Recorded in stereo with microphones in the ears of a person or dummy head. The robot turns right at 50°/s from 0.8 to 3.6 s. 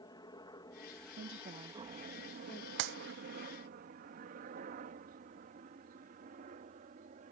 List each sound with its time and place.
0.0 s a helicopter: 30° left (ahead or behind); by 7.3 s 50° right (ahead or behind)
1.2 s a woman speaking: 60° right (ahead or behind); by 2.7 s 20° left (ahead or behind)
2.8 s a clap: 70° right (ahead or behind)